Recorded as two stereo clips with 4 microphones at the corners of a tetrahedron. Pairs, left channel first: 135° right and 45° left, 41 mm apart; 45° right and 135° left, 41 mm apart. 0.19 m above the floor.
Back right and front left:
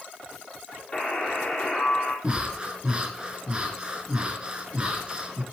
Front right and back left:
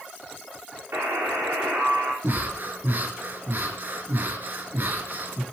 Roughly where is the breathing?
Left.